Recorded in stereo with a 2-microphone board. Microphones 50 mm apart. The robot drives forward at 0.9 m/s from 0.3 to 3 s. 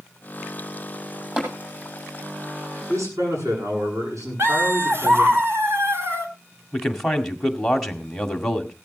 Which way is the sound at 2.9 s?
85° right.